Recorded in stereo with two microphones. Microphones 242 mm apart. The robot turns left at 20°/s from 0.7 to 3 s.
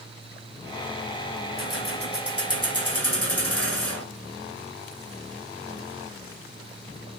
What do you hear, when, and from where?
1.6 s keys jangling: 60° left (ahead or behind), 3 m; by 4.0 s 75° left (ahead or behind), 3 m